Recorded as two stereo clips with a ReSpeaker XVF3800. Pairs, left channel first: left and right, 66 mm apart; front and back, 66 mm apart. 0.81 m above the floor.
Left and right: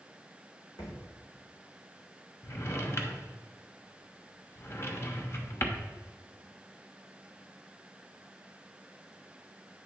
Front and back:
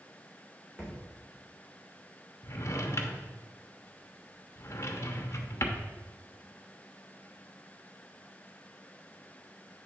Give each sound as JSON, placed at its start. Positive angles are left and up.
{"t": 0.8, "sound": "a thud", "azimuth_deg": 105, "distance_m": 3.0}
{"t": 2.4, "sound": "a drawer", "azimuth_deg": 40, "distance_m": 0.9}